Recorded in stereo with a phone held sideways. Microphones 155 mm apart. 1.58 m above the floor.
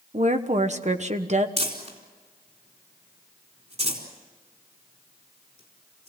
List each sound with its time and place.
0.1 s a woman speaking: 50° right (ahead or behind), 1.3 m
1.6 s crumpling: 45° right (ahead or behind), 4 m